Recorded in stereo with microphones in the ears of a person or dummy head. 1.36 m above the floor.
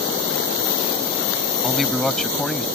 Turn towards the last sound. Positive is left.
turn(degrees=0)  # may be behind; listen again after turning